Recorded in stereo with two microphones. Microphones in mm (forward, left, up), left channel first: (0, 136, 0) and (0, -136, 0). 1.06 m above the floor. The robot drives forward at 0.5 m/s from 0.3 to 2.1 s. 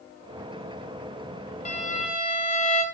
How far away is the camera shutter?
I don't hear a camera shutter.